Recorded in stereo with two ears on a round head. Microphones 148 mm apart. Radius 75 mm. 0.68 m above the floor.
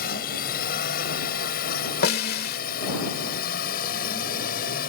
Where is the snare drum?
65° left (ahead or behind).